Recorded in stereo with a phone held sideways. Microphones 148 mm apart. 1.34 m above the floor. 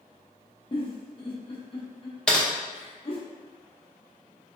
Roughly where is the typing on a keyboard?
Centre.